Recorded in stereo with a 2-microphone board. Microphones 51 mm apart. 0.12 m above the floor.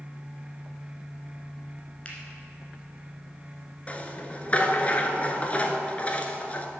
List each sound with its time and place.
2.0 s a finger snap: 25° left (ahead or behind), 1.6 m
3.9 s a rattle: 30° left (ahead or behind), 0.6 m